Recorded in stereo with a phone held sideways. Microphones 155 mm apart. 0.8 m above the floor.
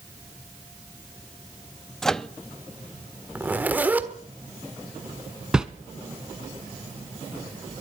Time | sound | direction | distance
2.0 | a microwave | 5° left (ahead or behind) | 0.6 m
3.4 | a zipper | 10° right (ahead or behind) | 1.4 m
5.5 | a whoosh | 5° right (ahead or behind) | 1.2 m